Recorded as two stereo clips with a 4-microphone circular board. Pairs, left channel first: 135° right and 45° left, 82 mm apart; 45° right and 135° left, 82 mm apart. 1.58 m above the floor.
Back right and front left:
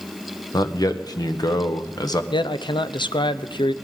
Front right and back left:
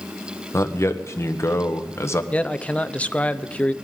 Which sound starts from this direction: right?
A man speaking, at 0.5 s.